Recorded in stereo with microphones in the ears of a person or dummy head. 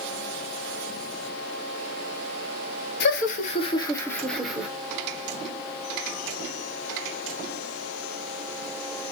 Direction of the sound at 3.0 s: 60° left (ahead or behind).